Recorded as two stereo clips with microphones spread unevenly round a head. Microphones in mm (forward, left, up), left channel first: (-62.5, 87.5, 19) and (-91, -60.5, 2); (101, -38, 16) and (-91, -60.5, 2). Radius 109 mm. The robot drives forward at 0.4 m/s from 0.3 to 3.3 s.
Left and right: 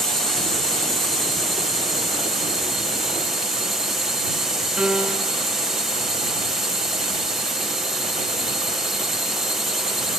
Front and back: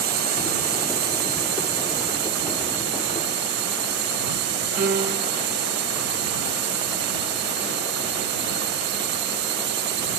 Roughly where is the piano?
Behind.